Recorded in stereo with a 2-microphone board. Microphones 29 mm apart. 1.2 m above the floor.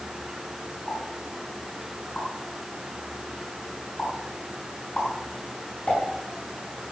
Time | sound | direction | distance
0.9 | a pop | 50° left (ahead or behind) | 5.5 m